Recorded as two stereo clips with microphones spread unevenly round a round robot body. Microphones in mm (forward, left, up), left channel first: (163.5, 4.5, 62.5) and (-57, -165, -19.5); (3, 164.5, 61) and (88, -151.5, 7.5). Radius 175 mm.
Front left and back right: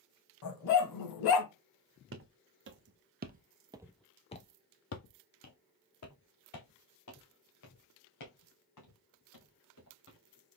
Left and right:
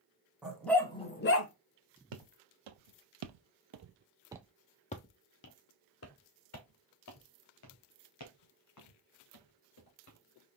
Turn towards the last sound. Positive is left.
turn(degrees=70)